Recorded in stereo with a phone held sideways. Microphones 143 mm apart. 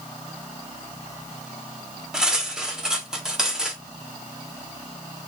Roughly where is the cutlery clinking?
Centre.